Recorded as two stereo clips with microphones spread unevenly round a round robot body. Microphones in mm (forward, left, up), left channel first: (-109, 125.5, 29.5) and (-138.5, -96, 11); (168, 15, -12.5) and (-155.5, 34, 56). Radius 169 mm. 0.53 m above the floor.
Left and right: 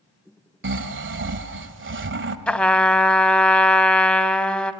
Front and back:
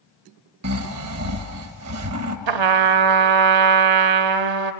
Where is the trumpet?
165° left, 0.8 m.